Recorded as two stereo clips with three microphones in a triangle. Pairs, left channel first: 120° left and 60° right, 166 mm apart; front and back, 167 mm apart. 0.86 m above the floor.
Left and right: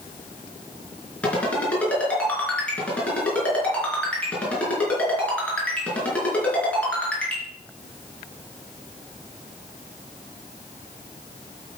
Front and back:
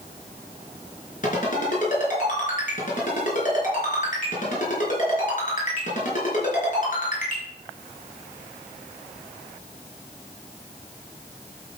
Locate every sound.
1.2 s a ringtone: 40° left, 4.5 m